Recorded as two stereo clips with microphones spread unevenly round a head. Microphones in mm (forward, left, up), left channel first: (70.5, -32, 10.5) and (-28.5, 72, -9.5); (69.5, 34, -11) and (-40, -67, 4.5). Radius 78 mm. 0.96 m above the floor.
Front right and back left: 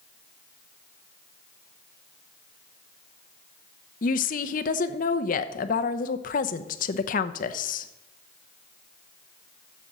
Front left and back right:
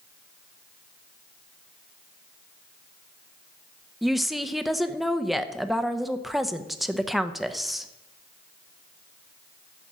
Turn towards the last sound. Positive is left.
turn(degrees=-45)